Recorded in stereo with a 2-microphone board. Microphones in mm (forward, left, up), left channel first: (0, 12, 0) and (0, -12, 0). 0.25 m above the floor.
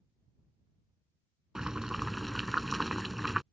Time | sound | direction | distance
1.6 | boiling | 25° right (ahead or behind) | ?